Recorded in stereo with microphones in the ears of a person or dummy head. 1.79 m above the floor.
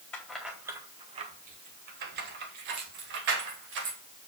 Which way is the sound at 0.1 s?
10° left (ahead or behind).